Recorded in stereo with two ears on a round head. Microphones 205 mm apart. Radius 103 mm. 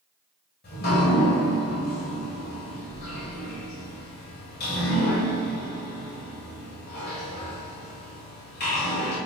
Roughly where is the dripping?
Left.